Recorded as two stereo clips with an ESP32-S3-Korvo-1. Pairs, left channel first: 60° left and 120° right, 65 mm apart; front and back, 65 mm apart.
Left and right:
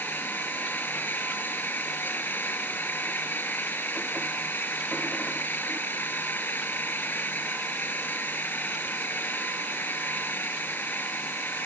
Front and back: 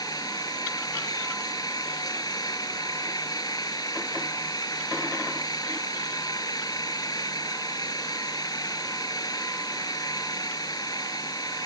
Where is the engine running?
Straight ahead.